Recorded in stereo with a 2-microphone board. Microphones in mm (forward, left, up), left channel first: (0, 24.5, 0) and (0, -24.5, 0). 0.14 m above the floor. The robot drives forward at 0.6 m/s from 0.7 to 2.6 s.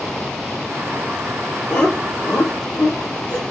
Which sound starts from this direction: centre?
Laughter, at 1.7 s.